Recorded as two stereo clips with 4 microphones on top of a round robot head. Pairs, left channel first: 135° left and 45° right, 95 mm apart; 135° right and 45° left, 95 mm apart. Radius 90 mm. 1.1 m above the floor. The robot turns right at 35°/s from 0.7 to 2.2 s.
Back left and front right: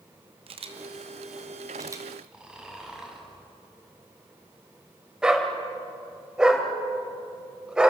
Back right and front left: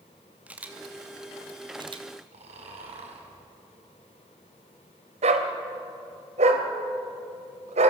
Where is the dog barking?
40° left, 2 m.